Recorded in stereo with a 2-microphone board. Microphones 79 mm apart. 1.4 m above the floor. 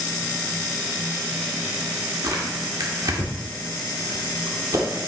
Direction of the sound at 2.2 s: 50° right (ahead or behind).